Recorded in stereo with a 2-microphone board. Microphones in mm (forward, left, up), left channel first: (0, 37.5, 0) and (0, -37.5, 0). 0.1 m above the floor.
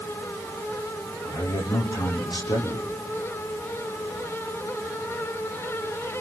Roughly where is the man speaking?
Left.